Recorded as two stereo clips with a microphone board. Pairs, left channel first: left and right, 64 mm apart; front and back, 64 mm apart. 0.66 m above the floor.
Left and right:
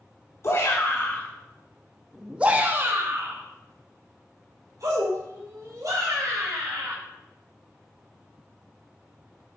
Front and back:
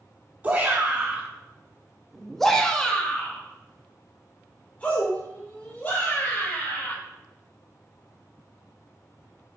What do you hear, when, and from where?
0.4 s a shout: 115° left, 1.3 m; by 7.0 s 65° right, 3.5 m